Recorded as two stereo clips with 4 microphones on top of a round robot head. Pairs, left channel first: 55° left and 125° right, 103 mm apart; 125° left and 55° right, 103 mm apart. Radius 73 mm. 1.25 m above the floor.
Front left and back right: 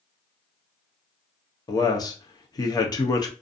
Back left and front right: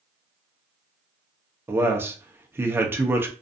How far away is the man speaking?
About 0.7 m.